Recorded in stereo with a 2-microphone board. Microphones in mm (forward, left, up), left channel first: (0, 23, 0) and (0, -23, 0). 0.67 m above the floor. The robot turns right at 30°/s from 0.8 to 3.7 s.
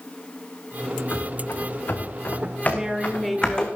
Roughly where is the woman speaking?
Centre.